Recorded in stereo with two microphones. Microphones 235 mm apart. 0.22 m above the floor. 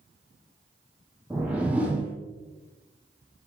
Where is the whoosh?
5° right (ahead or behind), 1.4 m.